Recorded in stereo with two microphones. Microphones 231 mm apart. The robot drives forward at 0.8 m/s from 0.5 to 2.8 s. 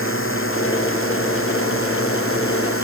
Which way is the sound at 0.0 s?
65° left (ahead or behind).